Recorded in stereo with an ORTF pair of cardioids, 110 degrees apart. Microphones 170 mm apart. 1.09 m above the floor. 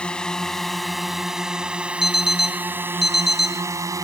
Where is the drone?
5° left; by 4.0 s 20° right.